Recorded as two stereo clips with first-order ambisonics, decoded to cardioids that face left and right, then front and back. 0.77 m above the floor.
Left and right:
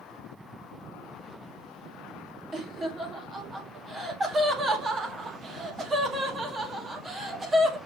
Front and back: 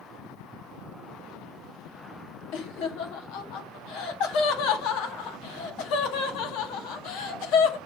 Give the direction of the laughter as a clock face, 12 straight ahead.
12 o'clock.